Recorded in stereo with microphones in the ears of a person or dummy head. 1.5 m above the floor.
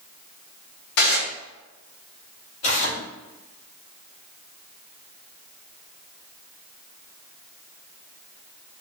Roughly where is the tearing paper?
Left.